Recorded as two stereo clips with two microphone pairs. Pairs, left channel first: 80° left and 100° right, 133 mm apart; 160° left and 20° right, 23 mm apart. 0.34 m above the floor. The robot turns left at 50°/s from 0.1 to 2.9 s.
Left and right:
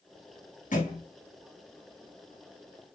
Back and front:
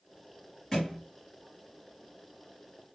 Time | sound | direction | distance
0.7 | a thud | 90° left | 2.5 m